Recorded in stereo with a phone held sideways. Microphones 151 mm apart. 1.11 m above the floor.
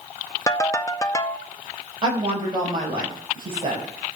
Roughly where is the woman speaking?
Right.